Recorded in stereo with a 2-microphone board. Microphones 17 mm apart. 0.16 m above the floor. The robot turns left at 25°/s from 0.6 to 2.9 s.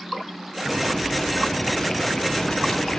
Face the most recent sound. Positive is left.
turn(degrees=130)